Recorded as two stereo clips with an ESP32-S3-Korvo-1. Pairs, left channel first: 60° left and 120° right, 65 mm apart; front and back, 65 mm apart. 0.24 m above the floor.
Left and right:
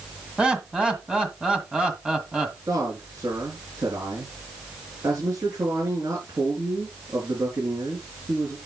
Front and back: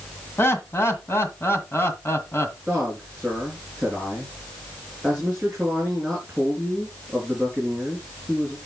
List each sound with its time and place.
0.4 s laughter: 50° right, 2 m
2.7 s a man speaking: 105° right, 4.5 m